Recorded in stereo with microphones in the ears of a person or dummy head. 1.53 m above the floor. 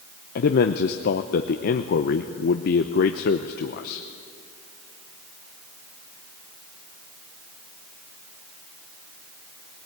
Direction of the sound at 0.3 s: 45° left (ahead or behind).